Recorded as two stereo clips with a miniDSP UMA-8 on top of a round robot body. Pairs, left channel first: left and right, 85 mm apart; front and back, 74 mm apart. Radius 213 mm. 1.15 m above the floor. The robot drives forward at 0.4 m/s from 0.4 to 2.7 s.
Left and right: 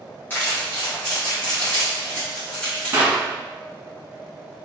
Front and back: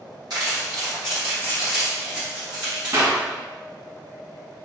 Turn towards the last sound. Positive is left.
turn(degrees=-150)